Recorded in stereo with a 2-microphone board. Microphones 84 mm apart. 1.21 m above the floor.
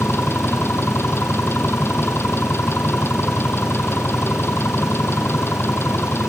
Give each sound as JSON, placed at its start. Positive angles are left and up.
{"t": 0.0, "sound": "an engine running", "side_deg": 25}